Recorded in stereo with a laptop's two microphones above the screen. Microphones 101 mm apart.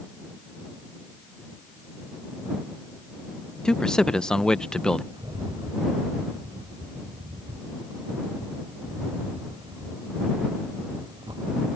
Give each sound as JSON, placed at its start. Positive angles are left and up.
{"t": 3.6, "sound": "a man speaking", "side_deg": 5}
{"t": 5.1, "sound": "a rattle", "side_deg": -50}